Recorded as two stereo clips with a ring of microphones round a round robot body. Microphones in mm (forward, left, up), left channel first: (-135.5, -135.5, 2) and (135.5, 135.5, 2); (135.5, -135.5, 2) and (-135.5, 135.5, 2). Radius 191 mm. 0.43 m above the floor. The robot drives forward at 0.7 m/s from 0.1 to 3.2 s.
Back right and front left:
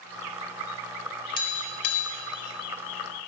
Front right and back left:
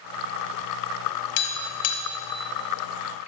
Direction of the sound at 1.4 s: 55° right.